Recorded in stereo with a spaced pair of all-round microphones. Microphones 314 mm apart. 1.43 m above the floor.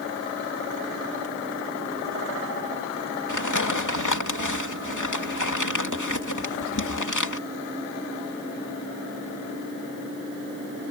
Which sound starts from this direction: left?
Crumpling, at 3.3 s.